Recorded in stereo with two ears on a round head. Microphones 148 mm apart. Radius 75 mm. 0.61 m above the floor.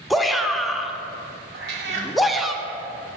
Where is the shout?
Centre (ahead or behind), 0.6 m.